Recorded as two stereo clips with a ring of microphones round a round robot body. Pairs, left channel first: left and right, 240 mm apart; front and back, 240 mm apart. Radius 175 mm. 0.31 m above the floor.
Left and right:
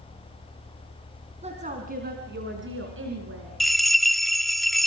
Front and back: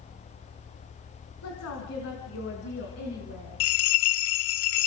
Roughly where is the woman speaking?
Ahead right.